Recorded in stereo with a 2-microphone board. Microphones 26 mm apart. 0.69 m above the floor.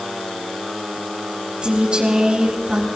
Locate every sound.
1.6 s a woman speaking: 40° right (ahead or behind), 3.5 m